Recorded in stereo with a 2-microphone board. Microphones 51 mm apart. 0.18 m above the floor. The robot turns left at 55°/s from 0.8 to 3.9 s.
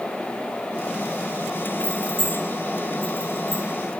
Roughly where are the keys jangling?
Right.